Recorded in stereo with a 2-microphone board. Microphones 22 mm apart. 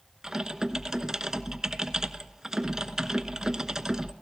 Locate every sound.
0.2 s typing on a keyboard: 20° right (ahead or behind), 1.0 m